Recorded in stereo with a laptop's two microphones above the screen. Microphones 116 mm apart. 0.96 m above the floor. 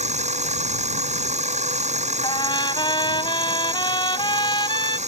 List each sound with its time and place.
0.0 s a machine running: 75° right (ahead or behind)
2.2 s a trumpet: 40° left (ahead or behind)